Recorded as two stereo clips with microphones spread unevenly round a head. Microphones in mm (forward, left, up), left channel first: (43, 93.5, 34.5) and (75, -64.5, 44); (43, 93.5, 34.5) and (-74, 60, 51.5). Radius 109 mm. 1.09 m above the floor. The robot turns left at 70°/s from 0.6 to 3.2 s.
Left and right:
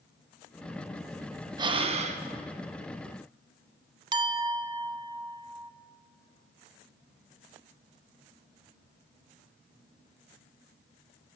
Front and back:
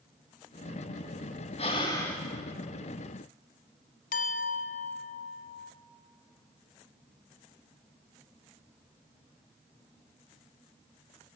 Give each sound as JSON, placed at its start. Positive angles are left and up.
{"t": 1.6, "sound": "breathing", "azimuth_deg": -30, "distance_m": 0.8}
{"t": 4.1, "sound": "a clink", "azimuth_deg": -15, "distance_m": 0.7}